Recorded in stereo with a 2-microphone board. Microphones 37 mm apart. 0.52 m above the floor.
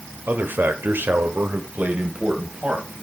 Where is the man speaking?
55° right (ahead or behind), 1.7 m; by 2.9 s 30° right (ahead or behind), 3 m.